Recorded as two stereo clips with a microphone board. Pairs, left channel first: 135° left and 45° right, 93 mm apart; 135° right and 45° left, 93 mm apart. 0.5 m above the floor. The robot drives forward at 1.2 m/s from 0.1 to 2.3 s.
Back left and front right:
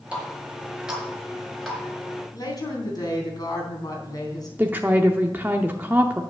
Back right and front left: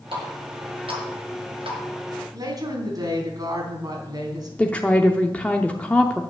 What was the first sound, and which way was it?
A running tap, 30° left.